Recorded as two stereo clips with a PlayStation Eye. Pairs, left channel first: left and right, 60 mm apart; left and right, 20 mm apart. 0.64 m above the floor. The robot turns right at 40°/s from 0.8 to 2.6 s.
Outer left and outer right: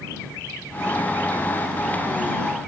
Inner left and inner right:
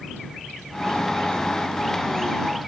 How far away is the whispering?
I don't hear whispering.